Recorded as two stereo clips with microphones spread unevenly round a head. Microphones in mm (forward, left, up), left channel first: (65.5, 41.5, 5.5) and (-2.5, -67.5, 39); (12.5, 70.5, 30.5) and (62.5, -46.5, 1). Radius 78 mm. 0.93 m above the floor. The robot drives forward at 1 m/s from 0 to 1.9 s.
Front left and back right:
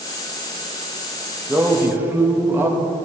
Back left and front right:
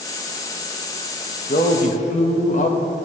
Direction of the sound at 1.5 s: 145° left.